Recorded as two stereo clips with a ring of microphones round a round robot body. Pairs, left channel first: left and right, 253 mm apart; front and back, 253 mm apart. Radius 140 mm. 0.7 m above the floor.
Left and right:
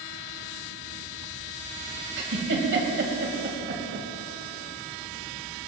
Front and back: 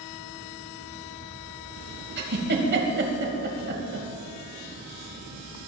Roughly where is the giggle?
Behind right.